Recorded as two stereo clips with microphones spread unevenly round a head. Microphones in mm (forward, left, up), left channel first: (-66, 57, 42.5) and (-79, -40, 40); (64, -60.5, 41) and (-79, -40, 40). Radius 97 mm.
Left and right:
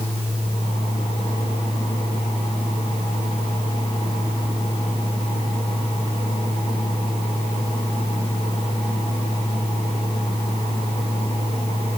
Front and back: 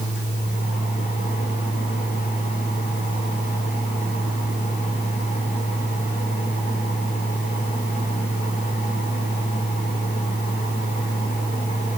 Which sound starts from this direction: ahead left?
A fan, at 0.0 s.